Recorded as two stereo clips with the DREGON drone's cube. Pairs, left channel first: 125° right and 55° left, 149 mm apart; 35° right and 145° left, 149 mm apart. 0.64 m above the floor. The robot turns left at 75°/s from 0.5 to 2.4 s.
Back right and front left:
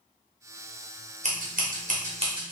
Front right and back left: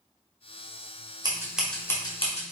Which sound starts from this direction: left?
Scissors, at 1.2 s.